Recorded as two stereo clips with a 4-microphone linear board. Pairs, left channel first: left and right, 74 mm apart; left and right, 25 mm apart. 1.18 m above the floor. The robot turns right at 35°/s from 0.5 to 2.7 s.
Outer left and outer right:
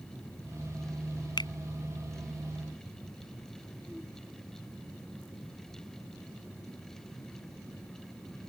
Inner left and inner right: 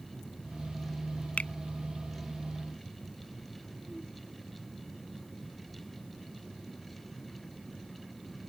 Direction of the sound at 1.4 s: 80° left.